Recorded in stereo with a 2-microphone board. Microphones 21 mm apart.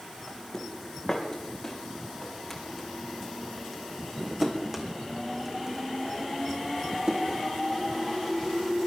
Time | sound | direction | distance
0.3 | footsteps | 30° left (ahead or behind) | 3.5 m